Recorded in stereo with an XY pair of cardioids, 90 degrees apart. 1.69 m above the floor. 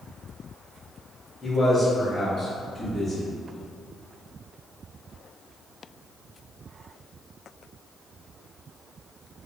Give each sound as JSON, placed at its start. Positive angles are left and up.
{"t": 1.4, "sound": "a man speaking", "azimuth_deg": 20, "distance_m": 1.4}